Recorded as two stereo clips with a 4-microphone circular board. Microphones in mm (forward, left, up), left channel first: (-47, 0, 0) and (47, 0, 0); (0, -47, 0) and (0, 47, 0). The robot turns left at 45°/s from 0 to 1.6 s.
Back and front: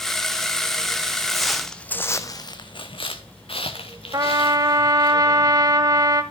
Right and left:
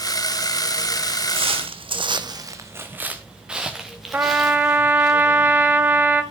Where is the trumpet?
30° left, 1.3 m.